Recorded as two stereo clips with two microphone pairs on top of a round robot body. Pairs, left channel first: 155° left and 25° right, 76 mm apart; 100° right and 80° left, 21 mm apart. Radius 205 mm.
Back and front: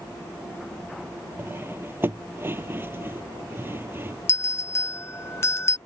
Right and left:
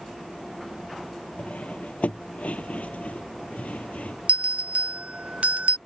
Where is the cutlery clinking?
90° right.